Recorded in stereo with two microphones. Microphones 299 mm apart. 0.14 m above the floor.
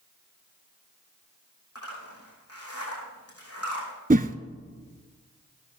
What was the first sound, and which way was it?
A zipper, 50° left (ahead or behind).